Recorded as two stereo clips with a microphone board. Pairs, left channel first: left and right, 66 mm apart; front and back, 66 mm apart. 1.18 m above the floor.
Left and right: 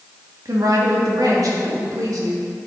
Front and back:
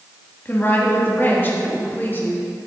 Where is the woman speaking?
60° right, 1.8 m.